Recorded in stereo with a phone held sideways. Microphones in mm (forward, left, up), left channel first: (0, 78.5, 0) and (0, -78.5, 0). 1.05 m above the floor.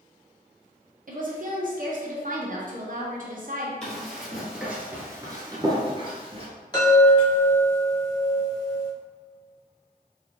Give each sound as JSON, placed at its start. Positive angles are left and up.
{"t": 1.1, "sound": "a woman speaking", "side_deg": -60, "distance_m": 0.8}
{"t": 3.8, "sound": "running footsteps", "side_deg": 5, "distance_m": 1.7}
{"t": 6.7, "sound": "a chime", "side_deg": 25, "distance_m": 1.6}